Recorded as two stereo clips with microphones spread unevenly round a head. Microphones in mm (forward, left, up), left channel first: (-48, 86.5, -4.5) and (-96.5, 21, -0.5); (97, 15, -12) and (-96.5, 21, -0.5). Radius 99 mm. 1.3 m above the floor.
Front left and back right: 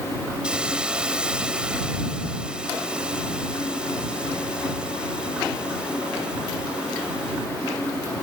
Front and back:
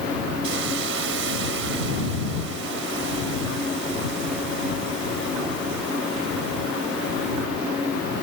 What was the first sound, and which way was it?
A hiss, 155° left.